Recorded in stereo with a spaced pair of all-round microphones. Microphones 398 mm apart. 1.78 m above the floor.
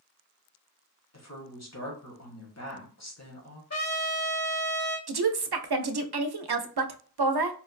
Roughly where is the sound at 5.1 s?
Right.